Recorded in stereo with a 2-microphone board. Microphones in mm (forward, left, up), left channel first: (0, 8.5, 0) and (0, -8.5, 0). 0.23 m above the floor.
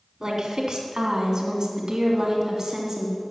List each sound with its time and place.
0.2 s a woman speaking: 45° right (ahead or behind), 2.0 m; by 3.2 s 35° right (ahead or behind), 1.9 m